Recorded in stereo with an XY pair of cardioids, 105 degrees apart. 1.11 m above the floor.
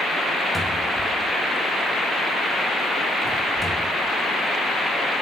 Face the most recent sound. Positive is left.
turn(degrees=15)